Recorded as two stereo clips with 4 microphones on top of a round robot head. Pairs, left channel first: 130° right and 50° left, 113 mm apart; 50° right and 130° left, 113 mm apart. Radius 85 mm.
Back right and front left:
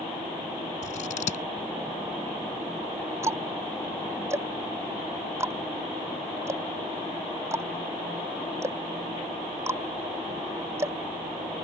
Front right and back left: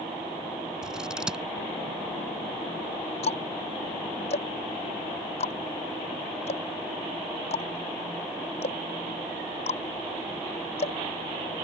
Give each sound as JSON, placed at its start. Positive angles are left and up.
{"t": 0.8, "sound": "scissors", "azimuth_deg": -145}
{"t": 3.2, "sound": "ticking", "azimuth_deg": -15}